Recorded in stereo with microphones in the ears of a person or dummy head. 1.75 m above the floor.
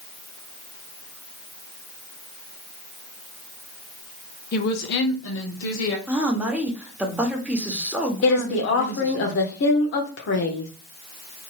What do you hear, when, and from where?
4.5 s a woman speaking: 55° left (ahead or behind), 0.7 m; by 6.0 s 80° left, 1.2 m
6.1 s a woman speaking: 10° right (ahead or behind), 0.9 m
8.2 s a woman speaking: 65° left (ahead or behind), 0.7 m